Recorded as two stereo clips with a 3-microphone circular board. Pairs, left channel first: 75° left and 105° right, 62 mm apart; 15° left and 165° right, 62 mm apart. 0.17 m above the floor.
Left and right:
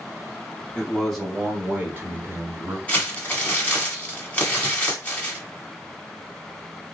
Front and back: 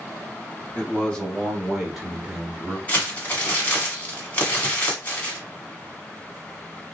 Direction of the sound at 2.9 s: 35° left.